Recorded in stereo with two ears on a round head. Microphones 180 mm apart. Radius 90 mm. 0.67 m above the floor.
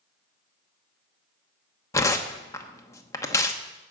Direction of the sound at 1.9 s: 15° left (ahead or behind).